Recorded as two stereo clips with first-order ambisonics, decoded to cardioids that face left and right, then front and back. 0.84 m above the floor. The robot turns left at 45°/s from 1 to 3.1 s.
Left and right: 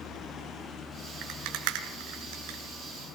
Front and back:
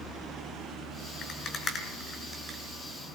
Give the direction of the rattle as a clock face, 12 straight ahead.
2 o'clock.